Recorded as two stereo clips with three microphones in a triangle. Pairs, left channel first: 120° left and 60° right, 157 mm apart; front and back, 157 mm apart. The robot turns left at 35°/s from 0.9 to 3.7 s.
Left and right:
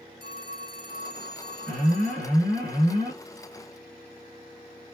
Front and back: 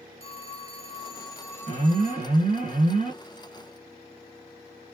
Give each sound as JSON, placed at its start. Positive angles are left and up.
{"t": 0.2, "sound": "a phone ringing", "azimuth_deg": -45, "distance_m": 1.8}
{"t": 1.7, "sound": "an alarm", "azimuth_deg": -140, "distance_m": 3.0}